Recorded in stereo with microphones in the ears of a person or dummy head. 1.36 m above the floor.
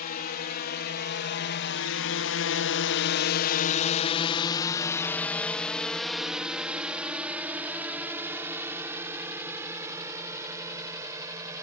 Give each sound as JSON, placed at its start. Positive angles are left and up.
{"t": 0.0, "sound": "a drone", "side_deg": 45}